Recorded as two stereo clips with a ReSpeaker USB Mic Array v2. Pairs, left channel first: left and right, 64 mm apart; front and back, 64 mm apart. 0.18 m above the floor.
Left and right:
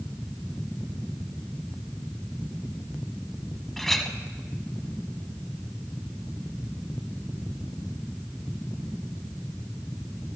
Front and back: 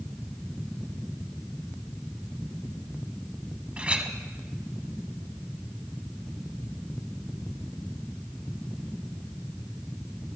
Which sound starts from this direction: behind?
A clink, at 3.8 s.